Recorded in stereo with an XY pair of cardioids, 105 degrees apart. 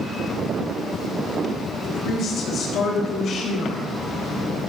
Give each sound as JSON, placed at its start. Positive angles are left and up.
{"t": 1.8, "sound": "a woman speaking", "azimuth_deg": 65, "distance_m": 3.5}